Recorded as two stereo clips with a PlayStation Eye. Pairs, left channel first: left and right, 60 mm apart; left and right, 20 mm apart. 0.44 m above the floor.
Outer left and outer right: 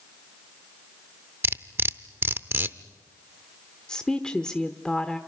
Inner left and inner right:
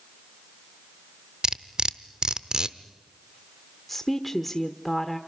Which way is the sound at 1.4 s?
40° right (ahead or behind).